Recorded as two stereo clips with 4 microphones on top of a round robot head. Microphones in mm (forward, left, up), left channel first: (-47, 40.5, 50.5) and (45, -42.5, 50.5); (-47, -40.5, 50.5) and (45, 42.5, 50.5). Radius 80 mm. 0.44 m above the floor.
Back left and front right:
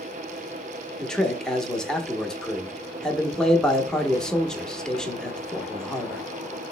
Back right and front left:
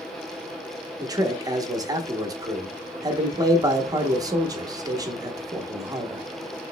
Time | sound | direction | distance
1.0 | a man speaking | 60° left | 0.9 m